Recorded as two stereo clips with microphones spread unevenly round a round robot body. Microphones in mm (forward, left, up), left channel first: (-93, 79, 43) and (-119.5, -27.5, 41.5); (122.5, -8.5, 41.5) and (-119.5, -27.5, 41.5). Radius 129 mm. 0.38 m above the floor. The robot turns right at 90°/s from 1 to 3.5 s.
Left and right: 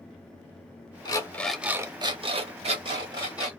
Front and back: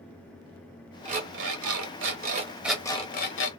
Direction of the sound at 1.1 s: 125° left.